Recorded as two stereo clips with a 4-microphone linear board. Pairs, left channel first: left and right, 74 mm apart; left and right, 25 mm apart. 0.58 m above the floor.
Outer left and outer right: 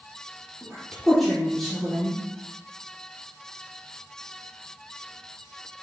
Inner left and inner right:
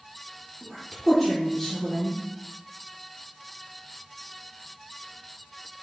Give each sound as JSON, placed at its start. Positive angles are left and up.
{"t": 0.6, "sound": "a woman speaking", "side_deg": 0, "distance_m": 1.7}